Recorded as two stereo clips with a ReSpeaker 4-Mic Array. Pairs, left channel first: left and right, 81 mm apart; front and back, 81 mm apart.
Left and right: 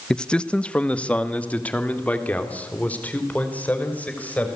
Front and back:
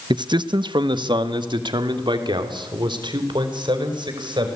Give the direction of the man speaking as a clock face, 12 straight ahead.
6 o'clock.